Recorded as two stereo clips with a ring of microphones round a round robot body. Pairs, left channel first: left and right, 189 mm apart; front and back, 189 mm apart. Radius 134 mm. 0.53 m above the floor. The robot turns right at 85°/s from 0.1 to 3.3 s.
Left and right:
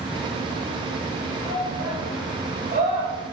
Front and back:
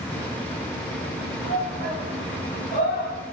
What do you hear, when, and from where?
1.4 s a shout: 175° right, 2.5 m; by 3.1 s 30° right, 2.5 m